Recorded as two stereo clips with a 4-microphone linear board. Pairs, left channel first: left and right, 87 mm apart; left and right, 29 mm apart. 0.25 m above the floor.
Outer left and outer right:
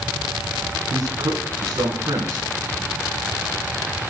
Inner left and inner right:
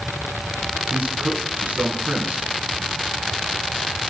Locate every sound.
0.9 s a man speaking: 50° right (ahead or behind), 2.5 m